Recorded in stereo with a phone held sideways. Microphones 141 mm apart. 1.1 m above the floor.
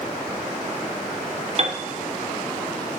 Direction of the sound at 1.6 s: 45° right (ahead or behind).